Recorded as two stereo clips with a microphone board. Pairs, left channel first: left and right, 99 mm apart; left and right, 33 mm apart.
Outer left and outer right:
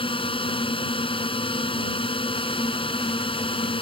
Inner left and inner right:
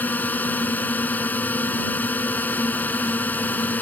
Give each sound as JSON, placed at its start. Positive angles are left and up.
{"t": 0.0, "sound": "a drone", "side_deg": 65}